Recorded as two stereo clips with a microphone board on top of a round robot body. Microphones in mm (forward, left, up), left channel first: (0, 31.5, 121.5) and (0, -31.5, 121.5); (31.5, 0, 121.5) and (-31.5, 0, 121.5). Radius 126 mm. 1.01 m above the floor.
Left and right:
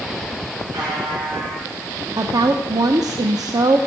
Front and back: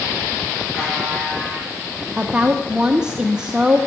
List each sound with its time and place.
0.7 s a buzzer: 80° right, 7 m
2.2 s a woman speaking: 105° right, 0.8 m